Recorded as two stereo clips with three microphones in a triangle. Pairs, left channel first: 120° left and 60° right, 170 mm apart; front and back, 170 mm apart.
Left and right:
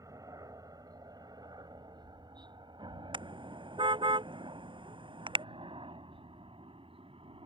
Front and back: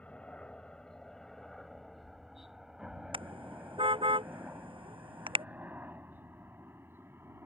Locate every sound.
0.0 s a helicopter: 70° right; by 7.5 s 105° right
3.1 s a car horn: 120° right